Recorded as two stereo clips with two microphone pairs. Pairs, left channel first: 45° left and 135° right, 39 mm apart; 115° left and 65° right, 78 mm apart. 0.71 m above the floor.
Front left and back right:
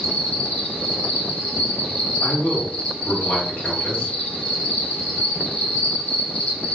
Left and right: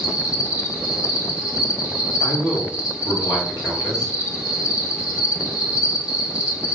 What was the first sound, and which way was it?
An insect, 95° left.